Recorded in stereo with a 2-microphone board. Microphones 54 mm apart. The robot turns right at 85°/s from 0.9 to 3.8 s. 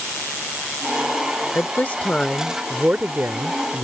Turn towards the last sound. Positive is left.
turn(degrees=-65)